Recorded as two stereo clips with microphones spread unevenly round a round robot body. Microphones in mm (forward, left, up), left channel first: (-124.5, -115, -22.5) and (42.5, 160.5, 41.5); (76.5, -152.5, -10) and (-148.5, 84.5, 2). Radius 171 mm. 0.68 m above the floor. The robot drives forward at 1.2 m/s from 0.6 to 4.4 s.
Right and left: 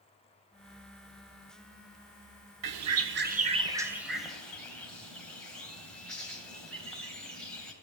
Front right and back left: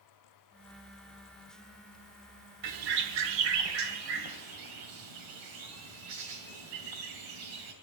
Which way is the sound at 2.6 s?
85° left.